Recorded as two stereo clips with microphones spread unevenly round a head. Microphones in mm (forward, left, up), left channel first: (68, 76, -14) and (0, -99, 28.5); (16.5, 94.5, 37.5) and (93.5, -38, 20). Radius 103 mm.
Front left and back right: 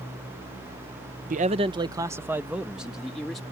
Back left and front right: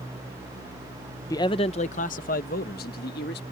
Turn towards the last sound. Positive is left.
turn(degrees=155)